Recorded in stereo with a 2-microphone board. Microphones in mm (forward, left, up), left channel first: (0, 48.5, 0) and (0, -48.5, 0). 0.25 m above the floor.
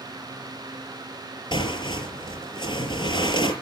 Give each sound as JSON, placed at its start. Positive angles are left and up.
{"t": 1.5, "sound": "tearing paper", "side_deg": 55, "distance_m": 6.0}